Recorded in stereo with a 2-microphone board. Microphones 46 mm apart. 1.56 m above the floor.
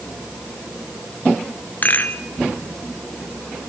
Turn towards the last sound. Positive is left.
turn(degrees=40)  # may be behind; listen again after turning